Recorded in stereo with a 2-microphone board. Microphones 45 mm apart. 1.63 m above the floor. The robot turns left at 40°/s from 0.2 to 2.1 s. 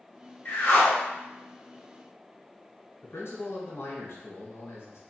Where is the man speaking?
70° left (ahead or behind), 1.1 m.